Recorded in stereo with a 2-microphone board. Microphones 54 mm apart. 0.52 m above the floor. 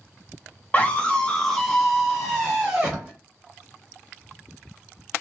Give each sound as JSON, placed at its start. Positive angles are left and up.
{"t": 0.7, "sound": "a scream", "side_deg": 30, "distance_m": 1.0}